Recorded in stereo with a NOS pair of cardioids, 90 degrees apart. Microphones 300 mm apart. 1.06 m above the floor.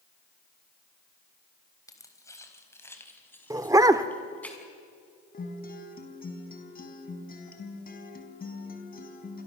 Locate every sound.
1.9 s keys jangling: 10° left, 3.5 m; by 4.5 s 5° left, 6 m
3.5 s a dog barking: 10° right, 1.3 m
5.3 s a guitar: 30° left, 4.5 m